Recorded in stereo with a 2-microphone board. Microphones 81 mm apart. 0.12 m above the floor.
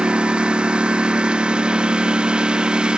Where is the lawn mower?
10° right (ahead or behind).